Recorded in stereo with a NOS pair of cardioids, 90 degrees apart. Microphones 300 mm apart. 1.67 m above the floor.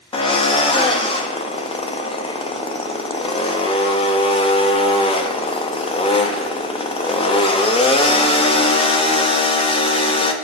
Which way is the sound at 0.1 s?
20° left.